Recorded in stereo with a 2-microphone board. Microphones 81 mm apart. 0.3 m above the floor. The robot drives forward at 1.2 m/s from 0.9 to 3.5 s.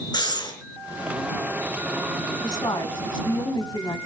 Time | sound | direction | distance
0.1 | breathing | 60° left (ahead or behind) | 4.5 m
2.4 | a woman speaking | 55° left (ahead or behind) | 2.5 m